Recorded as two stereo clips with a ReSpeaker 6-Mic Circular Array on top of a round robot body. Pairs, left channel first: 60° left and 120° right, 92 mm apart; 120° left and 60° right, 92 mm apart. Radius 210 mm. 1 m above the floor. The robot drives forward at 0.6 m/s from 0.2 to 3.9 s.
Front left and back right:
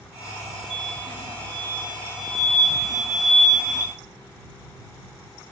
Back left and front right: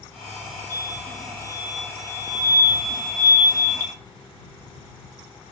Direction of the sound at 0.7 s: 115° right.